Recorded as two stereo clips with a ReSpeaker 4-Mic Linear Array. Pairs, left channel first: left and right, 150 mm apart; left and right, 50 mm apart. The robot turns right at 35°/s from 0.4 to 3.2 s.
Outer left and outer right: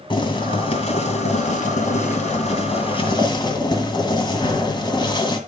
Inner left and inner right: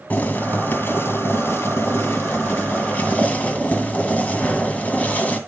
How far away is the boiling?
About 2 m.